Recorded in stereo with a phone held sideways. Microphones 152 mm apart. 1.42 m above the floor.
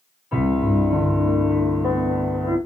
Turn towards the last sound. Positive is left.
turn(degrees=-10)  # may be behind; listen again after turning